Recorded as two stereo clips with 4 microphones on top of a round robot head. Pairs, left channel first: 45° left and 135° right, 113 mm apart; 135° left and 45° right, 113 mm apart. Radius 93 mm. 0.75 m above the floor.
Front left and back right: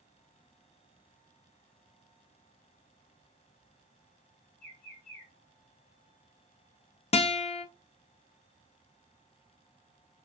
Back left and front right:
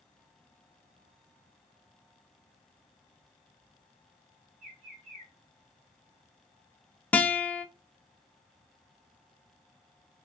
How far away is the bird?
About 1.7 m.